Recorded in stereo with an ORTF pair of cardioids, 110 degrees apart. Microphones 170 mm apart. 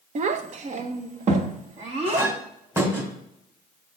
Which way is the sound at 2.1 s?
15° right.